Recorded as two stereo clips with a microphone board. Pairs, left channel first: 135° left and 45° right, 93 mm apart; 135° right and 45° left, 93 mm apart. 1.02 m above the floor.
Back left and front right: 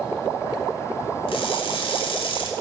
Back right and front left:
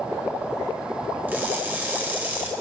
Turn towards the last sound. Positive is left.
turn(degrees=115)